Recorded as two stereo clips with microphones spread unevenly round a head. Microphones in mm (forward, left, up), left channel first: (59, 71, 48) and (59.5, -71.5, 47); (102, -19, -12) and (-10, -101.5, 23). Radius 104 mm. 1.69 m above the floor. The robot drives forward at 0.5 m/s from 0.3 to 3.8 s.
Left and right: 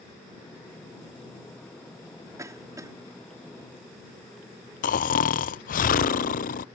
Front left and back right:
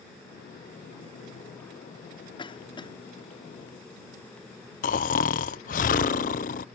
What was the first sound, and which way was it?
A cough, 20° right.